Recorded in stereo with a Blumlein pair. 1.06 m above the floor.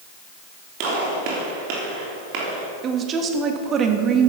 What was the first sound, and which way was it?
A gunshot, 40° right.